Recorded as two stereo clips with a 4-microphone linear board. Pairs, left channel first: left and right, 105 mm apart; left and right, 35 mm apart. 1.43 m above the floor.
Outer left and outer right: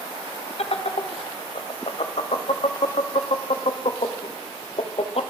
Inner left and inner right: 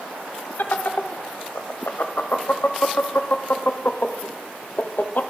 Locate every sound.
0.6 s laughter: 70° left (ahead or behind), 0.5 m